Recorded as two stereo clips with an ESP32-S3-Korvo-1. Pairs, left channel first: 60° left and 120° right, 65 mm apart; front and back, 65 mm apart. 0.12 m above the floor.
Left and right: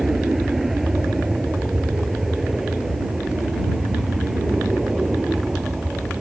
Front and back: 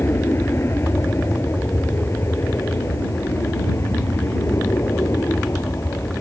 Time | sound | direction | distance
0.0 | an aircraft | 35° right | ?